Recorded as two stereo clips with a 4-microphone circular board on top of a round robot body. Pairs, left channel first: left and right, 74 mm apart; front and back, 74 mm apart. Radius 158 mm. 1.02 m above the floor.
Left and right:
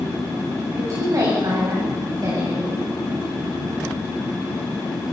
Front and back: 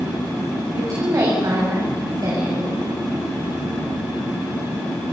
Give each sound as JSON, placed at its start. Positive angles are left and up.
{"t": 0.7, "sound": "a woman speaking", "azimuth_deg": -135, "distance_m": 6.5}